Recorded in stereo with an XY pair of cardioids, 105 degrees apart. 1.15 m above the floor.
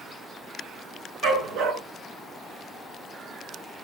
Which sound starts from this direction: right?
A dog barking, at 1.2 s.